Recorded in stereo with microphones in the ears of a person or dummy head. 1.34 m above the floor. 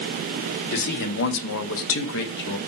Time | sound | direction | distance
0.7 | a man speaking | 55° left (ahead or behind) | 1.1 m